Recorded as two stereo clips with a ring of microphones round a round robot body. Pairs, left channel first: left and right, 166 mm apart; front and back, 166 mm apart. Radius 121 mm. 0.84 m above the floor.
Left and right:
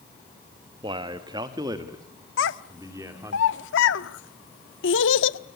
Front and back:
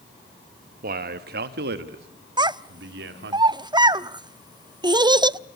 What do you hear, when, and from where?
0.8 s a man speaking: 155° right, 1.1 m; by 3.4 s 165° right, 2.5 m
2.4 s a child speaking: 115° left, 0.8 m